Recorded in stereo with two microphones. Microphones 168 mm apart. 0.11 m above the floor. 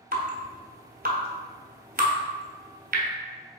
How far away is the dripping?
About 0.8 m.